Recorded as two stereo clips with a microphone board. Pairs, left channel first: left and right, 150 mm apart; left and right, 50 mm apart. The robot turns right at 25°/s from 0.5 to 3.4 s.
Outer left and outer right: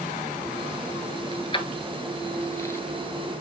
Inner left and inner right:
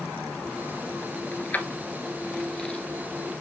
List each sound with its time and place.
1.3 s keys jangling: 40° left (ahead or behind), 1.2 m; by 2.8 s 15° left (ahead or behind), 1.2 m